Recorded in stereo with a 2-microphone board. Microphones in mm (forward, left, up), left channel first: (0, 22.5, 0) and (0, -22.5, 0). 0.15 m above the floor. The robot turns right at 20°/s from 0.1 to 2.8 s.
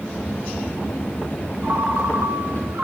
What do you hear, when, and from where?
1.6 s a ringtone: 55° right (ahead or behind), 1.6 m; by 2.8 s 45° right (ahead or behind), 1.6 m